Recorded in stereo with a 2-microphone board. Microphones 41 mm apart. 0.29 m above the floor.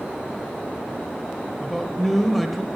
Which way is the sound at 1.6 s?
Centre (ahead or behind).